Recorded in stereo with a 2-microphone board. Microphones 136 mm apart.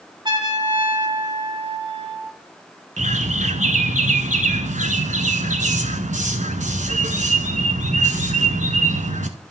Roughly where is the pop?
I don't hear a pop.